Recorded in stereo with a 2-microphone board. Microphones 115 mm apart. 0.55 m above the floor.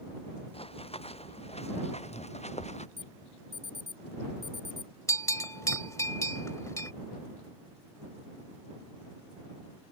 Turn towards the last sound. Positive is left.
turn(degrees=25)  # may be behind; listen again after turning